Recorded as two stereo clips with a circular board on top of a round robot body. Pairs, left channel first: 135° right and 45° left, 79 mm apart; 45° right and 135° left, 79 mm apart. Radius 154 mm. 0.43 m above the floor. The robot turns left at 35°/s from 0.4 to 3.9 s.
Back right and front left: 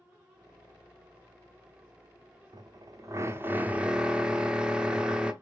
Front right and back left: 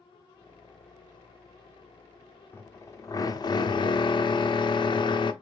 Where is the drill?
15° left, 0.6 m; by 5.3 s 30° right, 0.6 m.